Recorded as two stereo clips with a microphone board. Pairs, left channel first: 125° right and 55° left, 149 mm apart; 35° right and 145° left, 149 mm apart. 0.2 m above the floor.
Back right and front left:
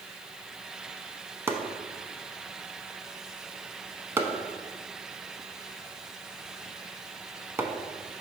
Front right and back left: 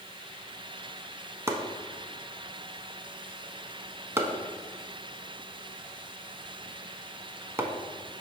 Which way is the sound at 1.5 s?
105° left.